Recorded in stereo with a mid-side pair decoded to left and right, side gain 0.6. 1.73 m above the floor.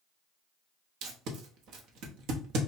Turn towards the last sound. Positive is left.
turn(degrees=-65)